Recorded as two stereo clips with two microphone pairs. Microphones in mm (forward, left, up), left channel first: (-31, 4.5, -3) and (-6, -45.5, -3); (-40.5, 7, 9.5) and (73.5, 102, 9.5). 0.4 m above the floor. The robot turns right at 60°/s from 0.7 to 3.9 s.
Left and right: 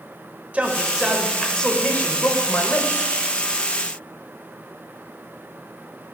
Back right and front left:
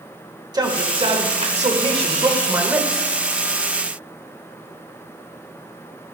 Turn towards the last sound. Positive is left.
turn(degrees=-175)